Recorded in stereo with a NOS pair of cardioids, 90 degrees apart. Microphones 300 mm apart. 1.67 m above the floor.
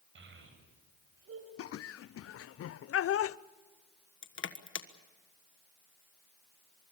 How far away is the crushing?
About 1.5 m.